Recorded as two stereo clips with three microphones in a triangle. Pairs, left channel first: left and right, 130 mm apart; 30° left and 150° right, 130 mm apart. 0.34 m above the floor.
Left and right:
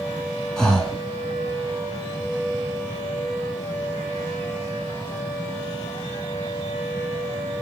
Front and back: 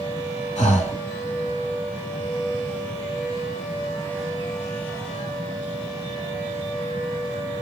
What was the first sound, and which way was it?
Breathing, 5° left.